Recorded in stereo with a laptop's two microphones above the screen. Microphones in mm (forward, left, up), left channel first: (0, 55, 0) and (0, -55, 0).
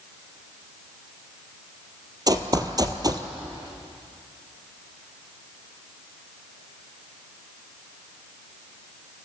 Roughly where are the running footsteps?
Right.